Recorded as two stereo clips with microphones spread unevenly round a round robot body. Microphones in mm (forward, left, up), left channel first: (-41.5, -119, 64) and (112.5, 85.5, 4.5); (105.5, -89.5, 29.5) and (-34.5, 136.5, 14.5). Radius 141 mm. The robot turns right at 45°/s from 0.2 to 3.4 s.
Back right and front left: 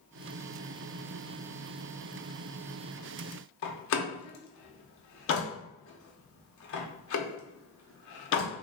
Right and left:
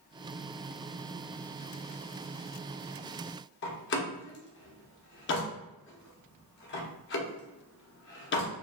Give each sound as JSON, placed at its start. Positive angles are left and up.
{"t": 3.6, "sound": "a door slam", "azimuth_deg": -95, "distance_m": 0.9}